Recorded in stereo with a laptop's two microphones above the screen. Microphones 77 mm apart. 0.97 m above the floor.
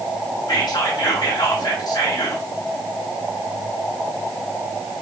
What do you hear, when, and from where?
0.5 s whispering: 55° left (ahead or behind), 0.6 m